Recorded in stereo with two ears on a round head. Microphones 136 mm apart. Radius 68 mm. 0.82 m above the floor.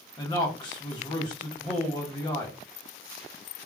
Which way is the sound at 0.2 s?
25° left (ahead or behind).